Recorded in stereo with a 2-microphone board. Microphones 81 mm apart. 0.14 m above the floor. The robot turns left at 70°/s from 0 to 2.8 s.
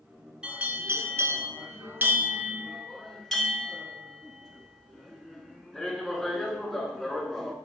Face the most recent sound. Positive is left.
turn(degrees=5)  # may be behind; listen again after turning